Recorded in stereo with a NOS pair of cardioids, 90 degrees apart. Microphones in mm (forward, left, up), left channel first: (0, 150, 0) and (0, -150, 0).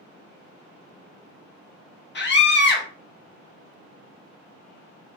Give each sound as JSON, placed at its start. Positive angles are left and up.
{"t": 2.1, "sound": "a scream", "azimuth_deg": 35, "distance_m": 1.0}